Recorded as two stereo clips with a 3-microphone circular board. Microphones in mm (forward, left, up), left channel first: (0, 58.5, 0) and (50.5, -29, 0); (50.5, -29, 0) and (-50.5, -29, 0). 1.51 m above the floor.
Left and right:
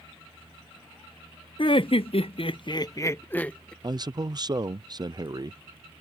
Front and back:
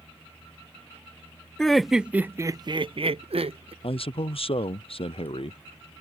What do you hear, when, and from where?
1.6 s laughter: 85° left; by 3.7 s 160° right
3.8 s a man speaking: 15° right